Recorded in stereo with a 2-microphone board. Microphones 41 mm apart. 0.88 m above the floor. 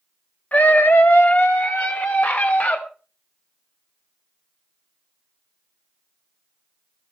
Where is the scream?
40° left (ahead or behind), 0.8 m; by 2.8 s 50° left (ahead or behind), 3 m.